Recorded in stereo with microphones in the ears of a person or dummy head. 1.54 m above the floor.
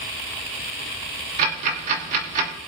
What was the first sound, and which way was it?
Ticking, 45° right (ahead or behind).